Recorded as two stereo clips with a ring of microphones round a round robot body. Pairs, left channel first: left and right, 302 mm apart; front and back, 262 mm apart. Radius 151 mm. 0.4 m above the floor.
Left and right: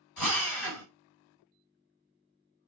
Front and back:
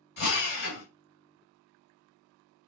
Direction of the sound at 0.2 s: 40° left.